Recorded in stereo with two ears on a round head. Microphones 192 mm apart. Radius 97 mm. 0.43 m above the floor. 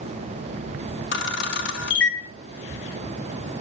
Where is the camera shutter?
55° left (ahead or behind), 1.6 m.